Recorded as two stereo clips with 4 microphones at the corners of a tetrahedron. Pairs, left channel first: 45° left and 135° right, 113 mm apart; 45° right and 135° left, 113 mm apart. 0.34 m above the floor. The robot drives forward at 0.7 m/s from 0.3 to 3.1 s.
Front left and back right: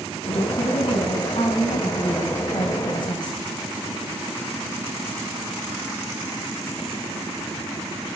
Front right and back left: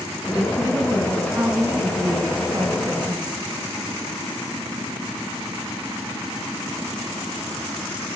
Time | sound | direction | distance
0.2 | a woman speaking | 55° left | 3.5 m